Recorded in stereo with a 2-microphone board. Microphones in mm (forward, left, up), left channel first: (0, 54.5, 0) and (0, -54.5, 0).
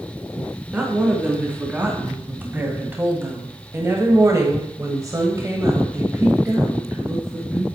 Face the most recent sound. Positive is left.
turn(degrees=-20)  # may be behind; listen again after turning